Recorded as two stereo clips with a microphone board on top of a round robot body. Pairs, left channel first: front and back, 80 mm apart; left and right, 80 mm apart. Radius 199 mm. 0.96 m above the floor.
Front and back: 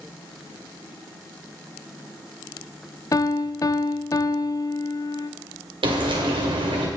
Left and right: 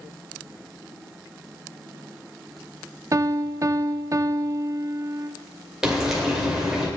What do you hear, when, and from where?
3.1 s a piano: 40° right, 0.6 m
5.8 s frying: 175° right, 2.5 m